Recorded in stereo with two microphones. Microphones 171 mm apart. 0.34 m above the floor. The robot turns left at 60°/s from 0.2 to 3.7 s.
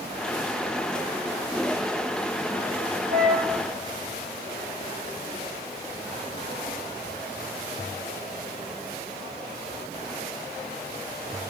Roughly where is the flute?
Right.